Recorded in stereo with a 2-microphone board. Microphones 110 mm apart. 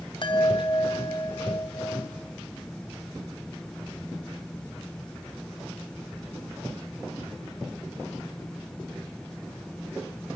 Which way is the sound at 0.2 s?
45° left (ahead or behind).